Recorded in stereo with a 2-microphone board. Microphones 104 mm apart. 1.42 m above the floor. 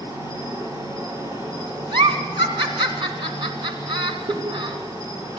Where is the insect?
30° right (ahead or behind), 6 m.